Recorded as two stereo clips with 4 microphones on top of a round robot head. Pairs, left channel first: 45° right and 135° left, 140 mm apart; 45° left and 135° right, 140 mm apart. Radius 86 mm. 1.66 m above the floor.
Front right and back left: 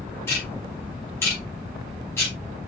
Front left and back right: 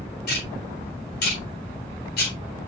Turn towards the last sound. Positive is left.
turn(degrees=30)